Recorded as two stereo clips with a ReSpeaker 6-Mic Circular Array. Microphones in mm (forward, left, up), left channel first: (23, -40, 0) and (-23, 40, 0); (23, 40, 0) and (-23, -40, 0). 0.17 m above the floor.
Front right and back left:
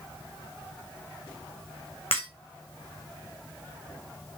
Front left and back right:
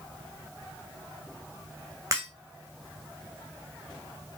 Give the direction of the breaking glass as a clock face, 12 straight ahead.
2 o'clock.